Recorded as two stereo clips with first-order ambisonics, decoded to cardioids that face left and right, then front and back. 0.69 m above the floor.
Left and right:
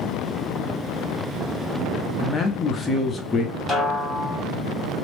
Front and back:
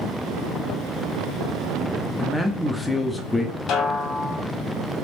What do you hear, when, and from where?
2.2 s a man speaking: 80° left, 0.6 m
3.7 s a snare drum: 10° left, 1.1 m